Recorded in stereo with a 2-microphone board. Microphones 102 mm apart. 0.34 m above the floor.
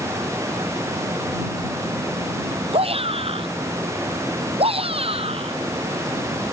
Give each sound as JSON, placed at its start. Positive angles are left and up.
{"t": 2.7, "sound": "a shout", "side_deg": -65}